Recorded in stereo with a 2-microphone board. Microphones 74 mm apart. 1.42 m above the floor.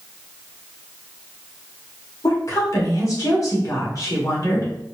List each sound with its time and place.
2.2 s a woman speaking: 50° left (ahead or behind), 1.6 m